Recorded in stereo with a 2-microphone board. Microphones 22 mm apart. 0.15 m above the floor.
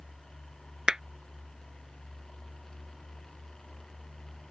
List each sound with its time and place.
0.9 s a clap: 30° right (ahead or behind)